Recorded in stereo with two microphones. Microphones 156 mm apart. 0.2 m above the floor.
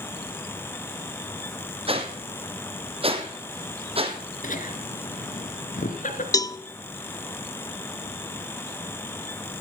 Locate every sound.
1.9 s a whoosh: 40° right (ahead or behind), 2 m
4.4 s laughter: 60° left (ahead or behind), 2.5 m
6.3 s a cowbell: 25° left (ahead or behind), 0.6 m